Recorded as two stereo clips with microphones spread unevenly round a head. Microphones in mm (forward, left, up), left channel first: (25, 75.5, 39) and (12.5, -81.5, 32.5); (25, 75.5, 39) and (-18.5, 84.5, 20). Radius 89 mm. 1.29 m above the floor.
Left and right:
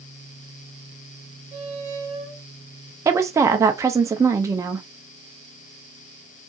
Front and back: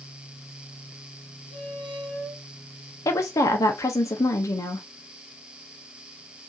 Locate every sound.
1.5 s a squeak: 45° right, 1.7 m
3.0 s a woman speaking: 25° right, 0.5 m